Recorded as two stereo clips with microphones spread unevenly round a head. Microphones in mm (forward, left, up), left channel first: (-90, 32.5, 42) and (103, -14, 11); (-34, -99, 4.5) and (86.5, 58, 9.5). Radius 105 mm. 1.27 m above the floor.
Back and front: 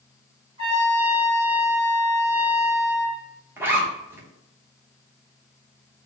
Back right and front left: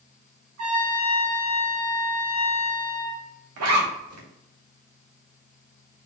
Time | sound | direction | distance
0.6 | a trumpet | 55° left | 1.9 m
3.6 | a zipper | 70° left | 0.8 m